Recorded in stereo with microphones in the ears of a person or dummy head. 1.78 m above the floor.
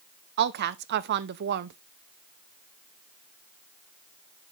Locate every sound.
0.4 s a woman speaking: 50° right (ahead or behind), 0.6 m